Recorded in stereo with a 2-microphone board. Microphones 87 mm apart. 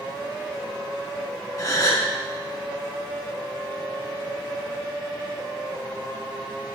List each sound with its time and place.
1.6 s a gasp: 45° left (ahead or behind), 2 m